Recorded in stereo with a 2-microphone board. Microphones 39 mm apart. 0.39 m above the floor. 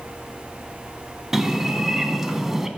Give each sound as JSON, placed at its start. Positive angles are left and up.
{"t": 1.3, "sound": "a bird", "side_deg": -10, "distance_m": 0.7}